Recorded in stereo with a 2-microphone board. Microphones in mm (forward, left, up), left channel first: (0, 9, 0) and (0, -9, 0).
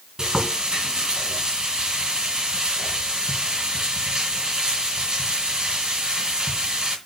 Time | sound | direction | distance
0.2 | frying | 40° right (ahead or behind) | 3 m